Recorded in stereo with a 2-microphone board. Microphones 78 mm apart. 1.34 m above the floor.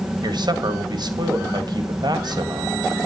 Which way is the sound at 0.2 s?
55° right (ahead or behind).